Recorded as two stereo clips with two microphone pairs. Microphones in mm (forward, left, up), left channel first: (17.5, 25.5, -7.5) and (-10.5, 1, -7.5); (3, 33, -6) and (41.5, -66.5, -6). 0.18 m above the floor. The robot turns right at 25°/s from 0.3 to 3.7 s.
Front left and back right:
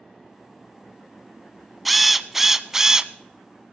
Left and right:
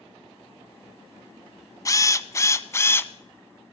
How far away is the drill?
About 0.5 m.